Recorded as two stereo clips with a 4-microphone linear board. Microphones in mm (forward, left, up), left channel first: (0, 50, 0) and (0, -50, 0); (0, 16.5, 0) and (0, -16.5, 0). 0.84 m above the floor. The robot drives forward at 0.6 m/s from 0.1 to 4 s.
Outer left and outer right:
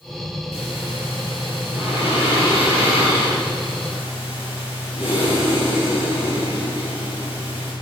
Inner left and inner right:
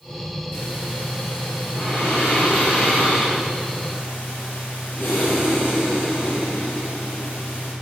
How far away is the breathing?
About 6.5 m.